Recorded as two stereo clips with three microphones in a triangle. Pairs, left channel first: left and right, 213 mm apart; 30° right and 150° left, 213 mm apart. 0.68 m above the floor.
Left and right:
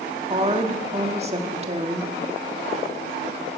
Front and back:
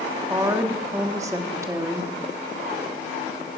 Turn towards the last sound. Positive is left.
turn(degrees=-140)